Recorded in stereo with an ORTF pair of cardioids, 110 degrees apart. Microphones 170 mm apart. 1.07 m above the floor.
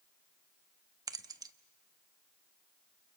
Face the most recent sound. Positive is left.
turn(degrees=-20)